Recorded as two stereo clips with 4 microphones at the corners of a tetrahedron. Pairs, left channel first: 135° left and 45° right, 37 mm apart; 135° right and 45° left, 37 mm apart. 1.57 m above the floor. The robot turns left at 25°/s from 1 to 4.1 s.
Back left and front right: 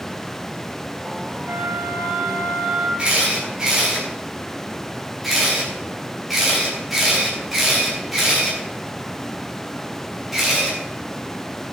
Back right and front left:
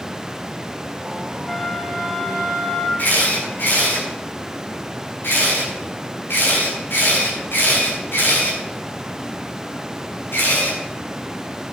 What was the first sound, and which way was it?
A flute, 60° right.